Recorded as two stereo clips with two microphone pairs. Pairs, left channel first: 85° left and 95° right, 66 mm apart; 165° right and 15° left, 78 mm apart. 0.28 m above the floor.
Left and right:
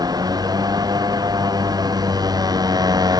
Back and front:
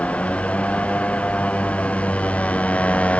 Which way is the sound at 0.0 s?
90° right.